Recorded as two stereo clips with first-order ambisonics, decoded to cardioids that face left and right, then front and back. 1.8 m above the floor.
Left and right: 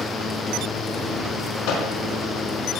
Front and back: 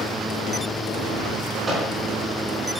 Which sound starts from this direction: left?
A microwave, at 1.7 s.